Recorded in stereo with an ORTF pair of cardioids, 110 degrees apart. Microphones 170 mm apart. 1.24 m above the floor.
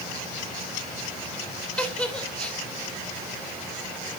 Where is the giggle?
5° left, 2.5 m.